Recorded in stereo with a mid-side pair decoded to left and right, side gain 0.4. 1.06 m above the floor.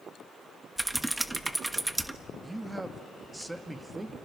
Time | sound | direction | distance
0.8 | typing on a keyboard | 15° right | 1.2 m
2.4 | a man speaking | 10° right | 1.6 m